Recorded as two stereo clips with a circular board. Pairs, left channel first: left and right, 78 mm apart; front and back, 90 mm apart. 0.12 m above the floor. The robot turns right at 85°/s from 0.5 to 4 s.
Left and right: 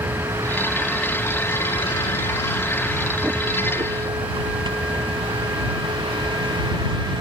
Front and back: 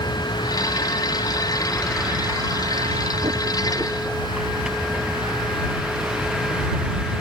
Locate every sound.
0.0 s a vehicle: 35° right; by 7.2 s 100° right